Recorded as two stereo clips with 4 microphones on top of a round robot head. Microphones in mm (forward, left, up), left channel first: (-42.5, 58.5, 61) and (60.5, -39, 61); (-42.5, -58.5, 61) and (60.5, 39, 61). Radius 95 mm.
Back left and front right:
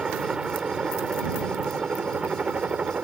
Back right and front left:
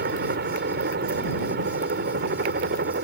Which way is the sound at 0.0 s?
40° left.